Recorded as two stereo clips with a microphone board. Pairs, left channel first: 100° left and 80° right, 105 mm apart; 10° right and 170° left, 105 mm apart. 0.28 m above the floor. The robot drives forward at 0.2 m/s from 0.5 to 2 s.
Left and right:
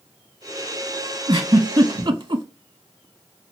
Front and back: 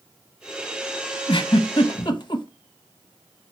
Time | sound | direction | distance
1.3 | a giggle | 45° right | 0.8 m